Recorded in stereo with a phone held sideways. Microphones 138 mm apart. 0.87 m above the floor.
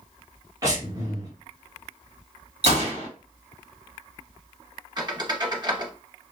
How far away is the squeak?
About 0.8 m.